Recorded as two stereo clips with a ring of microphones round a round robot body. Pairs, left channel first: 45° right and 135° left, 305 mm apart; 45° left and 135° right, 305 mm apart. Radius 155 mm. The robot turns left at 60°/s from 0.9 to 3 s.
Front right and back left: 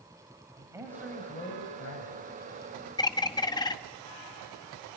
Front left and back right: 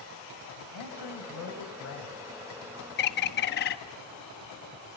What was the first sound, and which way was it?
A man speaking, 55° left.